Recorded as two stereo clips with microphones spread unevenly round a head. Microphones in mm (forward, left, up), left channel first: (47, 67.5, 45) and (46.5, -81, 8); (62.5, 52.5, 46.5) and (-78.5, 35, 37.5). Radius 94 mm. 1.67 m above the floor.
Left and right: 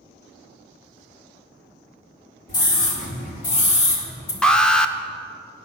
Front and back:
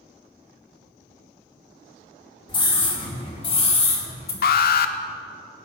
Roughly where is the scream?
Ahead left.